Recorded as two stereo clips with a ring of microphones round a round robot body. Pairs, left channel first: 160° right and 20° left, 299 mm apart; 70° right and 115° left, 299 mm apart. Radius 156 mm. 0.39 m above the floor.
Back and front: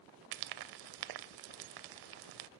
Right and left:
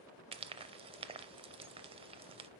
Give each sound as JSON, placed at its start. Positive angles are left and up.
{"t": 0.3, "sound": "frying", "azimuth_deg": 40, "distance_m": 0.6}